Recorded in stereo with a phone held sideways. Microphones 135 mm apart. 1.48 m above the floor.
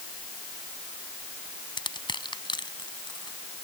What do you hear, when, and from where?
1.8 s crushing: 35° left (ahead or behind)